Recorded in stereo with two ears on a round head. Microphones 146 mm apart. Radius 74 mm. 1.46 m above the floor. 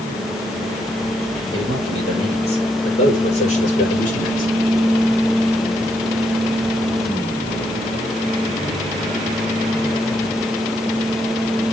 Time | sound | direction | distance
1.5 | a man speaking | 30° left (ahead or behind) | 6.5 m